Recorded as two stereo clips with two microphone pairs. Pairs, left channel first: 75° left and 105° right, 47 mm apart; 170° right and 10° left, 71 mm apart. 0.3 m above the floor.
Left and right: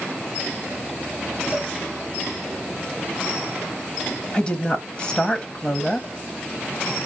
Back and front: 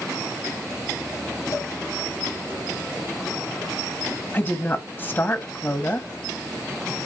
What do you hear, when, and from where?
1.5 s a cowbell: 165° right, 1.8 m
4.3 s a woman speaking: 140° left, 1.4 m